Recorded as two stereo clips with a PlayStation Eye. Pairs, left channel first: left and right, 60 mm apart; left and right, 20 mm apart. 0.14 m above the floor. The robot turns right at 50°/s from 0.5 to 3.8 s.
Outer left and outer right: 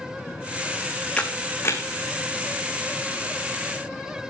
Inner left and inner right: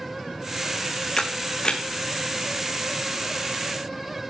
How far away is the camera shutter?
About 1.4 m.